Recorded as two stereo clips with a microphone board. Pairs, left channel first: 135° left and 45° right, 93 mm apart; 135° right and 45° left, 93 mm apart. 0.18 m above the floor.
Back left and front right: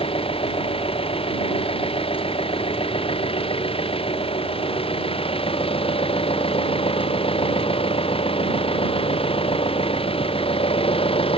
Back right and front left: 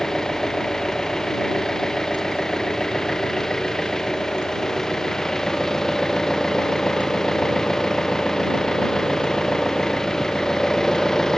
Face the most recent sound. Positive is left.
turn(degrees=140)